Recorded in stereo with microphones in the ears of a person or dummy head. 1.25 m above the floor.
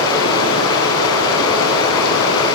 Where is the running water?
75° left (ahead or behind), 6.5 m.